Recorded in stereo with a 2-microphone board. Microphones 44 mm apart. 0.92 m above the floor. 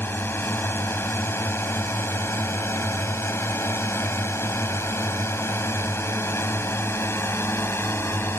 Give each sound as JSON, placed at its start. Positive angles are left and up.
{"t": 0.0, "sound": "a drone", "side_deg": 60}